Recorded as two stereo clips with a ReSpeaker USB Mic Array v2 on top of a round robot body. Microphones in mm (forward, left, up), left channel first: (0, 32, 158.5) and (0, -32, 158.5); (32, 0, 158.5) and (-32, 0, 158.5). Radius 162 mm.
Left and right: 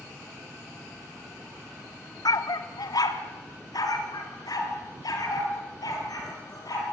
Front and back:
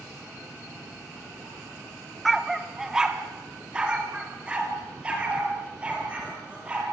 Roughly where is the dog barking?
Left.